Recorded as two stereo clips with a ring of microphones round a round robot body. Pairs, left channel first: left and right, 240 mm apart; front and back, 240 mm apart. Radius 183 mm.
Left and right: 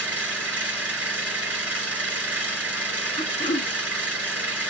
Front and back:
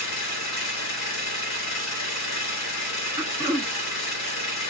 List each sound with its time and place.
0.0 s an engine running: 5° right, 1.7 m
3.2 s throat clearing: 120° left, 0.7 m